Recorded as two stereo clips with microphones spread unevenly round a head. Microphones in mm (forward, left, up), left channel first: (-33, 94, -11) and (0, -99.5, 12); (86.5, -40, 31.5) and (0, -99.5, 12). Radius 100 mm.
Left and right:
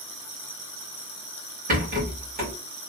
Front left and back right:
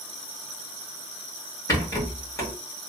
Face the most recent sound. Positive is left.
turn(degrees=-25)